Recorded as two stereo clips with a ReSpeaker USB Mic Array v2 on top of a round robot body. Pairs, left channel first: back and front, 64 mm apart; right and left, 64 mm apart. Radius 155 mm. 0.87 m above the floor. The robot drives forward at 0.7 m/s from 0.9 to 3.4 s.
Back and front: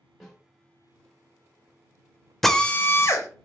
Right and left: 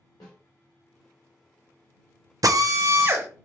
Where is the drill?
95° left, 0.6 m; by 3.3 s 145° left, 0.8 m.